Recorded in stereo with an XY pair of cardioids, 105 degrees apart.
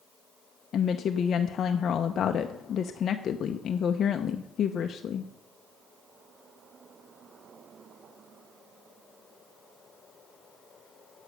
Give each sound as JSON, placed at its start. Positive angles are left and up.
{"t": 0.7, "sound": "a woman speaking", "azimuth_deg": 55, "distance_m": 0.6}